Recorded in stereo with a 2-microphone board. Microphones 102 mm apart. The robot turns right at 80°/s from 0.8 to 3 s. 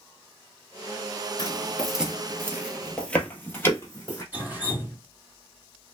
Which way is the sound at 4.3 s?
20° right (ahead or behind).